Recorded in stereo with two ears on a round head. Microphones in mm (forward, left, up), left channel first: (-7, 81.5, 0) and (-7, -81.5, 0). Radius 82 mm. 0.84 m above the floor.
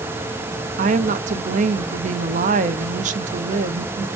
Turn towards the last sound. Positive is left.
turn(degrees=-40)  # may be behind; listen again after turning